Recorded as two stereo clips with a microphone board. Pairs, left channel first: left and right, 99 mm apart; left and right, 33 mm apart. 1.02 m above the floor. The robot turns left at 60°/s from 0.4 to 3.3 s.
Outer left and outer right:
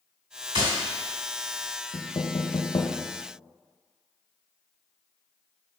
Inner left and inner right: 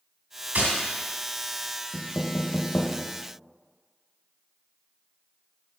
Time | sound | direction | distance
0.6 | tapping | 60° right (ahead or behind) | 2.5 m
1.9 | knocking | 45° left (ahead or behind) | 0.8 m